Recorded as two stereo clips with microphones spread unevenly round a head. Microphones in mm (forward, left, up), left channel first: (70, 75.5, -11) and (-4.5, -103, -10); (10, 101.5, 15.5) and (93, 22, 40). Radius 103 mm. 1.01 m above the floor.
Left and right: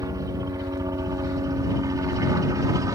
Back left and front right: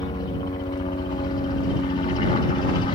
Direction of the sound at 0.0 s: 175° left.